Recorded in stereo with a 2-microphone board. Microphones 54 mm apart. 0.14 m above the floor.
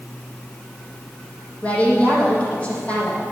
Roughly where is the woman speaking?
Left.